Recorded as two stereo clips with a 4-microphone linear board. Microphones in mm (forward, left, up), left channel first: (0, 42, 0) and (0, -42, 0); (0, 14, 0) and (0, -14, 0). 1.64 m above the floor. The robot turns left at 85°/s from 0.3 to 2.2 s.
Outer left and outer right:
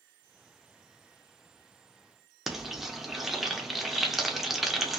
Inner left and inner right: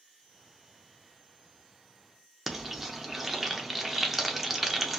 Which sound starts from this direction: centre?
Frying, at 2.5 s.